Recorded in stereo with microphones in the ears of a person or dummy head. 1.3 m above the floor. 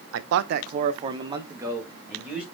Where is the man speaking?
75° right (ahead or behind), 0.5 m; by 2.4 s centre (ahead or behind), 1.5 m.